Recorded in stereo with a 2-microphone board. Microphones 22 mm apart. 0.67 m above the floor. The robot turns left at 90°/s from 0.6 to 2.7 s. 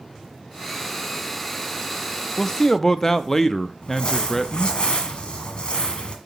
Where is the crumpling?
50° left (ahead or behind), 1.7 m.